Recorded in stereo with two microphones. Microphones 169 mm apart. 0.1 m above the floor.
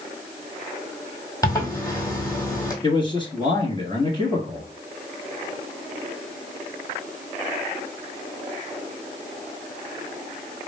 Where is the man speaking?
30° left (ahead or behind), 1.3 m.